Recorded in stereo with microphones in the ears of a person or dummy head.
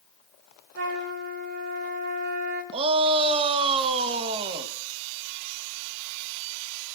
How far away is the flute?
About 3.5 m.